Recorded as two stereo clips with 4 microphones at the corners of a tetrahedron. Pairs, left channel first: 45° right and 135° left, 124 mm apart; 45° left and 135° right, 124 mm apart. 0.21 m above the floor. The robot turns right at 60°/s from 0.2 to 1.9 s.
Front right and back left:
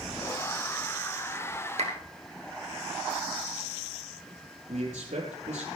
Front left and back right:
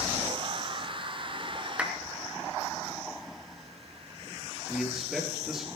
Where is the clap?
145° left, 2.5 m; by 1.9 s 155° left, 2.5 m.